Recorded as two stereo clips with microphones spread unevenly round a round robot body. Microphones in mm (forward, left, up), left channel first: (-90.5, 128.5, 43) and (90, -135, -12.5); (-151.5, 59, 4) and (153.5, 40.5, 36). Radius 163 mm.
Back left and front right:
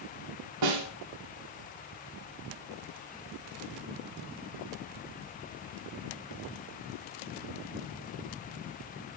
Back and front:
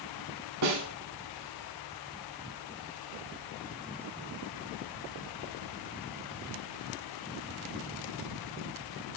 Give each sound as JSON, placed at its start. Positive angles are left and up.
{"t": 0.6, "sound": "a snare drum", "azimuth_deg": -45, "distance_m": 2.5}